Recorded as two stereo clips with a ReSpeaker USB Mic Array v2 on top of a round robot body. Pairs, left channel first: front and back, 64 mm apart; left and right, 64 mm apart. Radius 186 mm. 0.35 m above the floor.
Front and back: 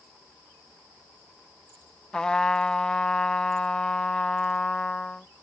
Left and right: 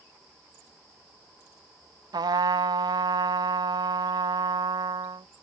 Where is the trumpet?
80° right.